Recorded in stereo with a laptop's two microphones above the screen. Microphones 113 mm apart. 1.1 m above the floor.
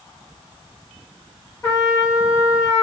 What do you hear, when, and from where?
1.6 s a trumpet: 30° left (ahead or behind), 1.2 m